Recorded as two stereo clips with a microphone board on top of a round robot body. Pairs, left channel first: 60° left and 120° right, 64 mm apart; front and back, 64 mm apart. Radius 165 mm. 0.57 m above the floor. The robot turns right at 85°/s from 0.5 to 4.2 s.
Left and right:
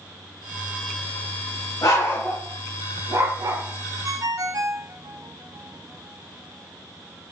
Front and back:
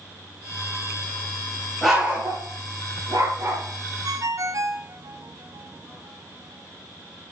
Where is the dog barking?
85° left, 7 m; by 3.6 s 120° right, 7 m.